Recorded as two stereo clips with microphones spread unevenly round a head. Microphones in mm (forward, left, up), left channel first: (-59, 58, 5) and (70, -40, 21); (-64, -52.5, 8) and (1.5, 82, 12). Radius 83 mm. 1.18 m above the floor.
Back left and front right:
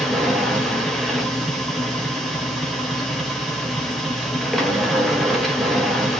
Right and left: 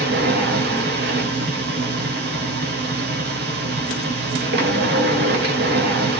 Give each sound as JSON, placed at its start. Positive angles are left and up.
{"t": 0.0, "sound": "a machine running", "azimuth_deg": 50, "distance_m": 1.8}